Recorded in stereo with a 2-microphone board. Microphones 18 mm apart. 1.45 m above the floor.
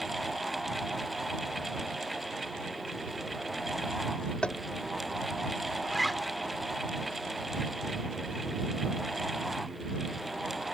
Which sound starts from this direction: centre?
A zipper, at 5.8 s.